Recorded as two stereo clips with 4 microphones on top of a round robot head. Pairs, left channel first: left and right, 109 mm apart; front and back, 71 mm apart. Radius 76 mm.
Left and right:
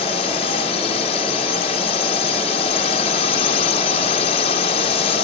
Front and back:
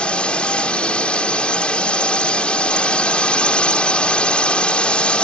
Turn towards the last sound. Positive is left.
turn(degrees=70)